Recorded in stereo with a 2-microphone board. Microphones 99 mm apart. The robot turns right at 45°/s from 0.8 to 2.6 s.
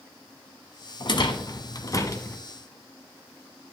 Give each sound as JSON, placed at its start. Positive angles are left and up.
{"t": 1.0, "sound": "a rattle", "side_deg": 50, "distance_m": 0.9}